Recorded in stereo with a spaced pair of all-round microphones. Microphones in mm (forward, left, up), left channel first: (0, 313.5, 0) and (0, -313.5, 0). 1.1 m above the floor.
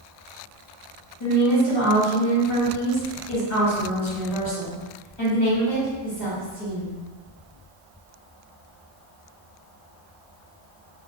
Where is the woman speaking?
40° left (ahead or behind), 1.6 m.